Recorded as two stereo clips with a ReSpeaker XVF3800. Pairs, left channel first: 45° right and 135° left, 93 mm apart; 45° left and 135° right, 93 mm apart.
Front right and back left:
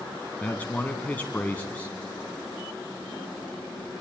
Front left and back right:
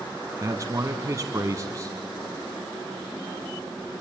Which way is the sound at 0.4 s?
110° right.